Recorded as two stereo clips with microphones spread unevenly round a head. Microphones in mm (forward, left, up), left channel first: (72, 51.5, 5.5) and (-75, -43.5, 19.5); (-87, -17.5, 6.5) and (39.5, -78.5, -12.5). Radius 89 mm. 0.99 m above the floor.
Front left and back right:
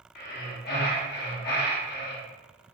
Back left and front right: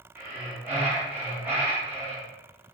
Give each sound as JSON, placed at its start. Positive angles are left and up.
{"t": 0.1, "sound": "breathing", "azimuth_deg": 50, "distance_m": 0.8}